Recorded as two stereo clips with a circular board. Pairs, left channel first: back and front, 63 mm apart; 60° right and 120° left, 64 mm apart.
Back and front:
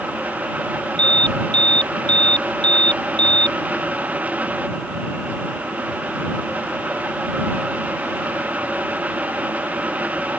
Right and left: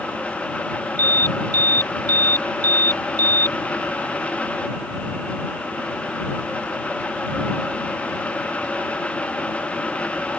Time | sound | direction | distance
1.0 | an alarm | 105° left | ?